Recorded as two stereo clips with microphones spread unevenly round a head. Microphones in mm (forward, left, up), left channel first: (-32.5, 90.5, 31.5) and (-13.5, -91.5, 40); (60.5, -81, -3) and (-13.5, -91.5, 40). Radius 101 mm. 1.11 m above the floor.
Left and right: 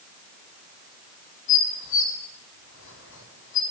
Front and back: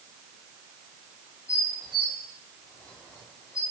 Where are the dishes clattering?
110° left, 6 m.